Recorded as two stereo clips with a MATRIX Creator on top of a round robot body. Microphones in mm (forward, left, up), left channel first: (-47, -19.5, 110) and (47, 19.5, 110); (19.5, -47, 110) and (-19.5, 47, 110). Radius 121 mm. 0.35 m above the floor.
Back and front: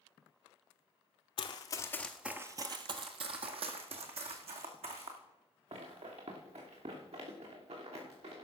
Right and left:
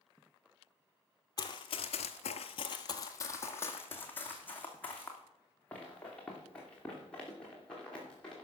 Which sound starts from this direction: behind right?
Running footsteps, at 1.4 s.